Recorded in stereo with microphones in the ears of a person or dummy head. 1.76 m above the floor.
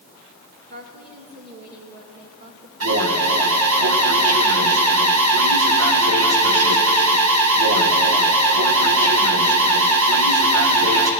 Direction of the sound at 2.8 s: 80° right.